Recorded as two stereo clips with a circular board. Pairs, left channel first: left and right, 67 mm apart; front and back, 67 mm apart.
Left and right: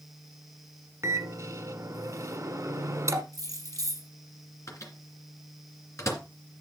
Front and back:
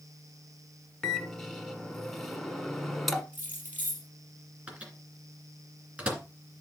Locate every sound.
1.0 s a microwave: 85° right, 1.2 m
3.3 s keys jangling: 115° right, 4 m
4.7 s a microwave: 115° left, 2.5 m